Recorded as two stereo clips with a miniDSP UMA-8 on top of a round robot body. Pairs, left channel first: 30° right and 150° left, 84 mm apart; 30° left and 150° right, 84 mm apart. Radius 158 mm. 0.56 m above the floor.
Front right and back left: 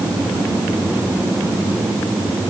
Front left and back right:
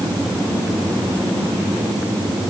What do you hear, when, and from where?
Only background noise.